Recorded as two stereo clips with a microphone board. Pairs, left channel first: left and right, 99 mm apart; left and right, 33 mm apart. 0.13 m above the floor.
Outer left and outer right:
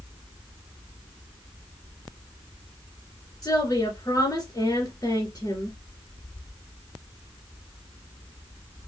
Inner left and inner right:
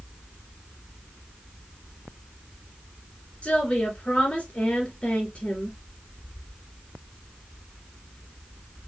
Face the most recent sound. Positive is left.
turn(degrees=35)  # may be behind; listen again after turning